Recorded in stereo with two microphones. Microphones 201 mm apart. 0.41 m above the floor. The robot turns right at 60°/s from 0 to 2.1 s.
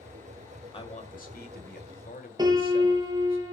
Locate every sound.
0.7 s a man speaking: 35° left, 1.9 m; by 3.4 s 115° left, 1.9 m
2.4 s a piano: 20° right (ahead or behind), 2.5 m